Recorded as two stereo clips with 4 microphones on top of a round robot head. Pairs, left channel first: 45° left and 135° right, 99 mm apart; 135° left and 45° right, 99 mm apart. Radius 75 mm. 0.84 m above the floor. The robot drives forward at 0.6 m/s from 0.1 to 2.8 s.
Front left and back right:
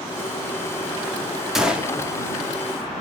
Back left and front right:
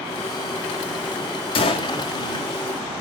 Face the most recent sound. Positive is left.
turn(degrees=160)